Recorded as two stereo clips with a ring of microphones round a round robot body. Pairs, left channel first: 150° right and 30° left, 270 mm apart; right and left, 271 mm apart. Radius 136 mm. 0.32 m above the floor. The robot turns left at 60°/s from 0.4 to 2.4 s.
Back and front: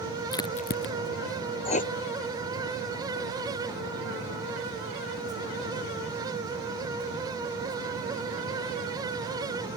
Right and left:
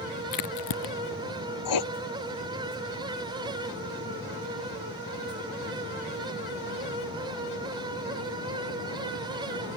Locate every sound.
0.3 s a crack: 75° right; by 0.9 s 105° right
1.6 s writing: 80° right; by 1.9 s 95° right